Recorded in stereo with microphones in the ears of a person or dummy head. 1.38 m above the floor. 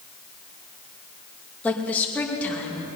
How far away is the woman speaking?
About 2 m.